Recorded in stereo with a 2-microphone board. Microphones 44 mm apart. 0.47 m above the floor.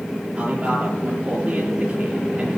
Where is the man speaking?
30° right (ahead or behind), 8 m.